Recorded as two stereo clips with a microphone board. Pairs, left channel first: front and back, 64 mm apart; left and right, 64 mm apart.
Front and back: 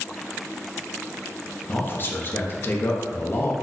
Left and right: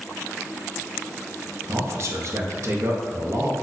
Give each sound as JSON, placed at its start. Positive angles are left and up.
{"t": 1.7, "sound": "a man speaking", "azimuth_deg": -55, "distance_m": 0.5}